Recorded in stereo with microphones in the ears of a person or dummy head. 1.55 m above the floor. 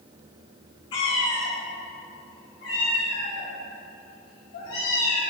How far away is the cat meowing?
About 1.0 m.